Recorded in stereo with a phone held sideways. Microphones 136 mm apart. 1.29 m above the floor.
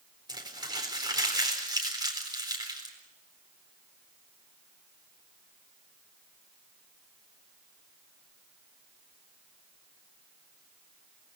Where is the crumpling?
30° right (ahead or behind), 4 m.